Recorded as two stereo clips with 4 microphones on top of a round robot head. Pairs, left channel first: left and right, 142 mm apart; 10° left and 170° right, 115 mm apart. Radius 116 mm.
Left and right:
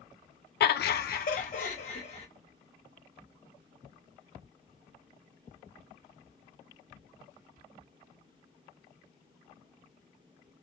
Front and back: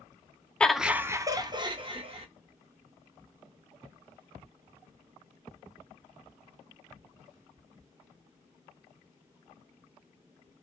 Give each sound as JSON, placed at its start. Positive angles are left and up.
{"t": 0.6, "sound": "laughter", "azimuth_deg": 90, "distance_m": 0.6}